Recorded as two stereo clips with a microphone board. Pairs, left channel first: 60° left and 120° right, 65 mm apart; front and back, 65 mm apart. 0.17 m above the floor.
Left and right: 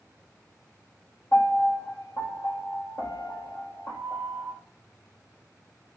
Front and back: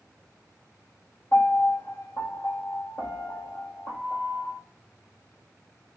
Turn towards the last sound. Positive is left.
turn(degrees=30)